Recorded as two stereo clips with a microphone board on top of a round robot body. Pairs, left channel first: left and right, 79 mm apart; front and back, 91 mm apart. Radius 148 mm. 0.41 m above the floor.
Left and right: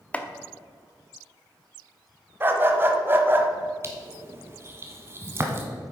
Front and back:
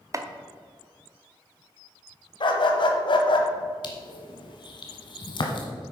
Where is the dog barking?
30° right, 1.2 m.